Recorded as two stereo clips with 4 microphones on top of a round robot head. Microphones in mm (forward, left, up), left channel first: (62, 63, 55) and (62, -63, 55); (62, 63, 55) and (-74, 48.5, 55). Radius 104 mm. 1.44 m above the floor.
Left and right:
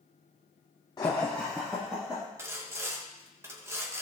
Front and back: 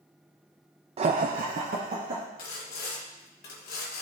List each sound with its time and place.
1.0 s laughter: 150° left, 0.5 m; by 2.2 s 170° right, 1.5 m
2.4 s sawing: 20° right, 1.3 m